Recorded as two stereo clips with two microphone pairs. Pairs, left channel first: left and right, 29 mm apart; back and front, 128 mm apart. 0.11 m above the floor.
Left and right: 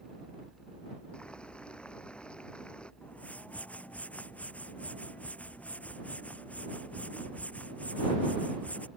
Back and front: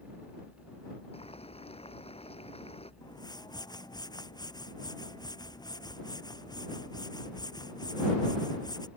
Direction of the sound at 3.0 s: 120° left.